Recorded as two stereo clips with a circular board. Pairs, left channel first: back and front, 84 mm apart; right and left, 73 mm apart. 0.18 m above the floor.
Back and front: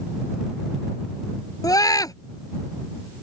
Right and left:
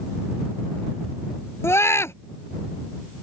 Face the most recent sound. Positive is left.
turn(degrees=-140)